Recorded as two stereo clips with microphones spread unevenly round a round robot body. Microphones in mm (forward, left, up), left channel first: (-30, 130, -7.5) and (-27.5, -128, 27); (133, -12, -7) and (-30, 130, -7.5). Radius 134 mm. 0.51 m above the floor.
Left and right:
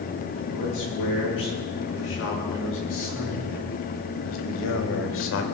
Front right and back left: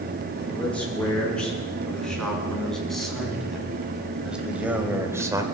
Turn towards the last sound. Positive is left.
turn(degrees=70)